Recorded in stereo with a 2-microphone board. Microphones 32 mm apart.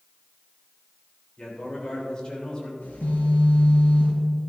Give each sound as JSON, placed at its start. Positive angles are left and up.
{"t": 1.4, "sound": "a man speaking", "side_deg": 30, "distance_m": 3.5}
{"t": 2.8, "sound": "a phone buzzing", "side_deg": 80, "distance_m": 4.5}